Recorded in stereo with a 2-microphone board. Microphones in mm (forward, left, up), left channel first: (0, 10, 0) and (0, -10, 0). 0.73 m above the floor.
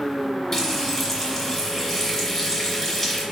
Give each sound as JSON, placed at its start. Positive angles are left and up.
{"t": 0.5, "sound": "frying", "side_deg": 20, "distance_m": 1.3}